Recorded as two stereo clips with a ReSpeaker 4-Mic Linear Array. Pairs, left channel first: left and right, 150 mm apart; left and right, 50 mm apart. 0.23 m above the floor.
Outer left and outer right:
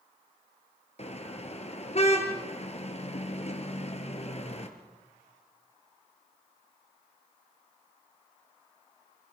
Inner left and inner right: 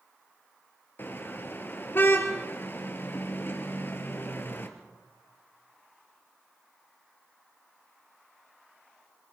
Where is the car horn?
45° left (ahead or behind), 2.5 m.